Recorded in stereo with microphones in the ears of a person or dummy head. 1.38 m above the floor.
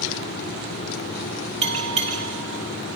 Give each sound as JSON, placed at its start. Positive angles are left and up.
{"t": 1.6, "sound": "a bell", "side_deg": -45, "distance_m": 2.0}